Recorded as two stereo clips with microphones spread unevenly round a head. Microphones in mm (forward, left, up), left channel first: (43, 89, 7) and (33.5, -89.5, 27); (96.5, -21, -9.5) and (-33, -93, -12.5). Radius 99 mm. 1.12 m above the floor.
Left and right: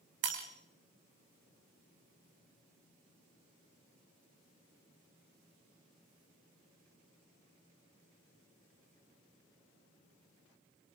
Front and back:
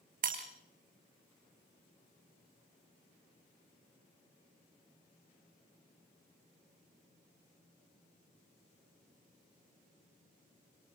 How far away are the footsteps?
I don't hear footsteps.